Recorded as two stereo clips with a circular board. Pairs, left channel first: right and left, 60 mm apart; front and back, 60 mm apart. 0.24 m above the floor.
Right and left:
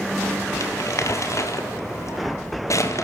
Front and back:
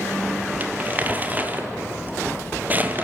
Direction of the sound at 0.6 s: 120° right.